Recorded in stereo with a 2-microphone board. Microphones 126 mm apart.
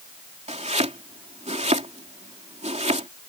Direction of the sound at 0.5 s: 70° right (ahead or behind).